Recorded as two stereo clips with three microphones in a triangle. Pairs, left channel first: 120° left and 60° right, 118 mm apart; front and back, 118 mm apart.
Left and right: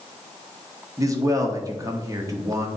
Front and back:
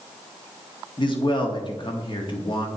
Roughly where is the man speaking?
Ahead.